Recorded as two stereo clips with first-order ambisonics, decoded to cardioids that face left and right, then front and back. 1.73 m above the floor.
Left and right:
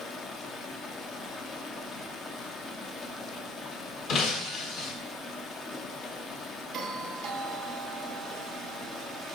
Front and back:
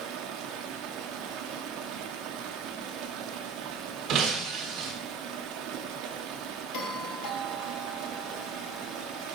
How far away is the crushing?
No crushing in this recording.